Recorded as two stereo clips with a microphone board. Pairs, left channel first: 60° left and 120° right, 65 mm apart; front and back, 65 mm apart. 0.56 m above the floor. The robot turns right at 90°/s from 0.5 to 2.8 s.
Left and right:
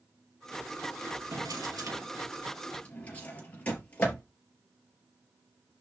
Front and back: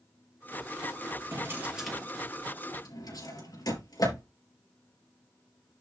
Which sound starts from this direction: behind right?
A drawer, at 1.3 s.